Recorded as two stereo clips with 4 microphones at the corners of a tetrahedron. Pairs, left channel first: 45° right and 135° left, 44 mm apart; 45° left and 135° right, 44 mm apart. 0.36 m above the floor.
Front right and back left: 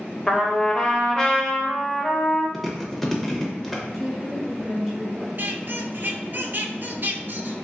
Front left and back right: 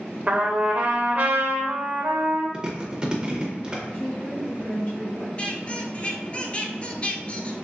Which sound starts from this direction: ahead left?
A woman speaking, at 3.9 s.